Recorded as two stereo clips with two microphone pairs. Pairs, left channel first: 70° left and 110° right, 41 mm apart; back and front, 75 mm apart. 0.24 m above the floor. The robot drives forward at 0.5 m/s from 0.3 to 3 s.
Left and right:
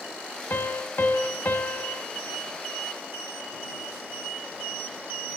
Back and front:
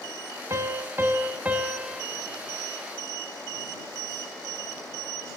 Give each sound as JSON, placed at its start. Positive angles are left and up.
{"t": 0.5, "sound": "a piano", "azimuth_deg": 45, "distance_m": 1.6}